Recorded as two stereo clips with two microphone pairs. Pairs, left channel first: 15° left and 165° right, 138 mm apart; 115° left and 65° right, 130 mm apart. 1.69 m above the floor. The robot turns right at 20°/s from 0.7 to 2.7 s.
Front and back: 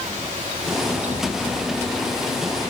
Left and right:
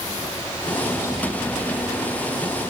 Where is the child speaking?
I don't hear a child speaking.